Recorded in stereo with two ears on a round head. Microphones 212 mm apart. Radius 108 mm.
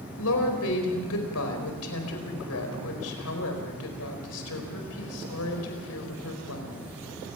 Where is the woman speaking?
75° left (ahead or behind), 4.5 m.